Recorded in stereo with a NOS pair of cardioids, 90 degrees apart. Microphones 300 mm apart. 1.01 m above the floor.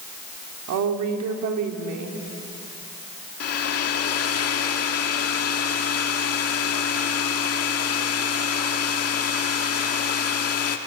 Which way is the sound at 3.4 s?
50° left.